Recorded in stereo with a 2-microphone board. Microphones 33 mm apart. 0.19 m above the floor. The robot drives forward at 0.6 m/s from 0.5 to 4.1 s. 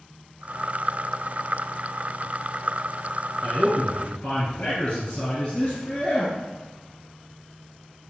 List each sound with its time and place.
3.4 s a man speaking: 35° left (ahead or behind), 1.2 m; by 6.3 s 30° left (ahead or behind), 1.4 m